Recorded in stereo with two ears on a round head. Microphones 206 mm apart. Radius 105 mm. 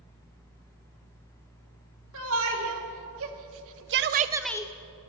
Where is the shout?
60° right (ahead or behind), 3 m; by 4.7 s 25° left (ahead or behind), 0.7 m.